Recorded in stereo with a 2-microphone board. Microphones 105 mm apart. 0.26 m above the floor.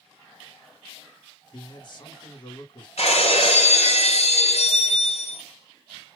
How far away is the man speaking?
About 2.5 m.